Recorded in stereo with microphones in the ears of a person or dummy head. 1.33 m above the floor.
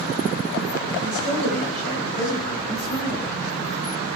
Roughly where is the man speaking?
Left.